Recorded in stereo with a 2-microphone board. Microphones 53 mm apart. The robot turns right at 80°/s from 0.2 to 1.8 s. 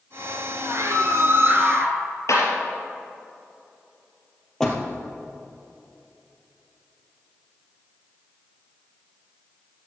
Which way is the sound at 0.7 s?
110° right.